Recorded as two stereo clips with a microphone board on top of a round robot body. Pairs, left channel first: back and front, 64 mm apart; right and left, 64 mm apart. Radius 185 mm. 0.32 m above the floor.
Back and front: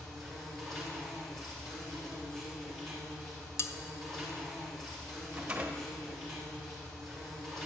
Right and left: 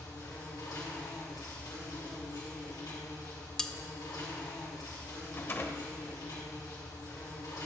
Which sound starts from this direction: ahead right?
A rattle, at 5.3 s.